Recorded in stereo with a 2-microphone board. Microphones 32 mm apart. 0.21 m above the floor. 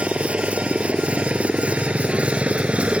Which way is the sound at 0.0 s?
35° right (ahead or behind).